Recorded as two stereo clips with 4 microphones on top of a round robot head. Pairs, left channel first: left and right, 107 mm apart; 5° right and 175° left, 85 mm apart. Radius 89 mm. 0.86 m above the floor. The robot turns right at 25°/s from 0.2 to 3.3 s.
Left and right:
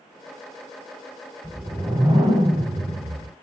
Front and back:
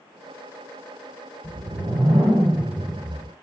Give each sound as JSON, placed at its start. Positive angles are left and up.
{"t": 1.4, "sound": "a whoosh", "azimuth_deg": -155, "distance_m": 1.0}